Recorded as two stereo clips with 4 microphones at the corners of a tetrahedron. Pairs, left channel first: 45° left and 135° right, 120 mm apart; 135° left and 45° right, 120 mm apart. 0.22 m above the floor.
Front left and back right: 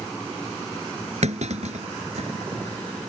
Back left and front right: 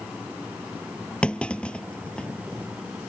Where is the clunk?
145° right.